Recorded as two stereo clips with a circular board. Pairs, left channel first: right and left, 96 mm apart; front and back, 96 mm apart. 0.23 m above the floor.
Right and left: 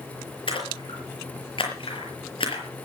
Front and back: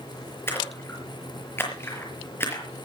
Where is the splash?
65° right, 5.5 m.